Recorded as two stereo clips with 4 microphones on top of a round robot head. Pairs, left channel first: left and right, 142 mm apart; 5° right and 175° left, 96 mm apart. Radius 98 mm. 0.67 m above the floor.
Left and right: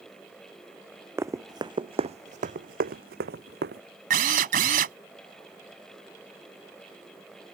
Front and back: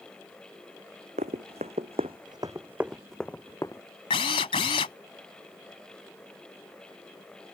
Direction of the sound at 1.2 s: 160° right.